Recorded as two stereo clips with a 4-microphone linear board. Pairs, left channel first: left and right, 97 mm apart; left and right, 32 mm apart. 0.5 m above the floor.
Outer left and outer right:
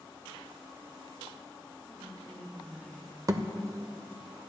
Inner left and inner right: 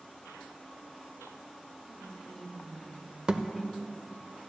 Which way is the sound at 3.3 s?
35° right (ahead or behind).